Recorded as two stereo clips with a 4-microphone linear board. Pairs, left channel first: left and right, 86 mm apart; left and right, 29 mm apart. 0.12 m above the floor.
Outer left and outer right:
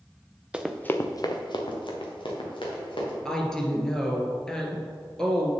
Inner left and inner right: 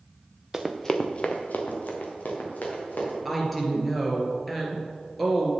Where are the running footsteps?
15° right (ahead or behind), 0.9 m; by 3.1 s 80° left, 4 m.